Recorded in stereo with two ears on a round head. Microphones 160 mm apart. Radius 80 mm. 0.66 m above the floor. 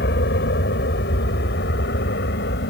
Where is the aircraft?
65° left (ahead or behind).